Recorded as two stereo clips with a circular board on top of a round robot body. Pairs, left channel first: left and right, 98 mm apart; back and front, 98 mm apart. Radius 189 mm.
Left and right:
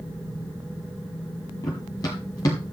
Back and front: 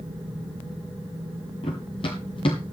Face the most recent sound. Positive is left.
turn(degrees=145)